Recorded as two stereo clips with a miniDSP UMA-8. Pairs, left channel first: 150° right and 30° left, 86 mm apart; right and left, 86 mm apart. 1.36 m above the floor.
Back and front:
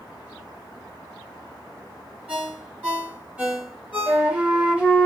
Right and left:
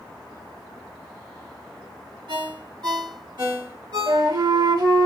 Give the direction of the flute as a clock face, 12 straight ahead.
8 o'clock.